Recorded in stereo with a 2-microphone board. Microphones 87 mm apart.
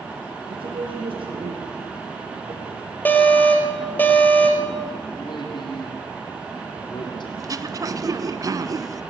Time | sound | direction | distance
0.5 | a man speaking | 80° right | 7 m
3.0 | an alarm | 20° left (ahead or behind) | 3.5 m
5.2 | a man speaking | 60° left (ahead or behind) | 6.5 m
7.4 | throat clearing | 45° right (ahead or behind) | 1.0 m